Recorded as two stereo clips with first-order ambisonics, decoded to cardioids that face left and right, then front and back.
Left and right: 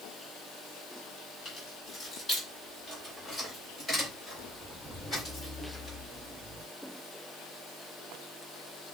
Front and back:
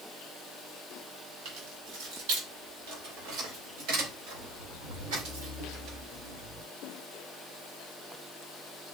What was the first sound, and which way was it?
Keys jangling, 170° left.